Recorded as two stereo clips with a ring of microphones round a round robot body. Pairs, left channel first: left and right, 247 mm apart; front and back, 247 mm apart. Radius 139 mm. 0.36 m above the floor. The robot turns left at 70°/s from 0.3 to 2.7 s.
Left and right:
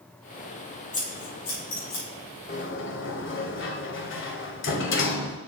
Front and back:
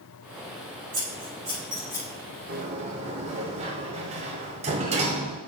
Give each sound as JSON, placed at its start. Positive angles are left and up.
{"t": 0.9, "sound": "scissors", "azimuth_deg": 150, "distance_m": 4.0}
{"t": 2.5, "sound": "a sliding door", "azimuth_deg": 135, "distance_m": 1.2}